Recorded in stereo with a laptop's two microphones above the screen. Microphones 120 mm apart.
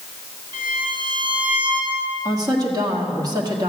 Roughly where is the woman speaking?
Right.